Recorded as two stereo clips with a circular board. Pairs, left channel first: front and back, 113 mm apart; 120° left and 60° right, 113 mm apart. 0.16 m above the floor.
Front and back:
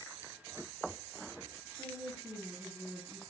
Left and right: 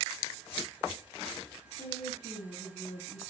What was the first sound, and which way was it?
A woman speaking, 100° left.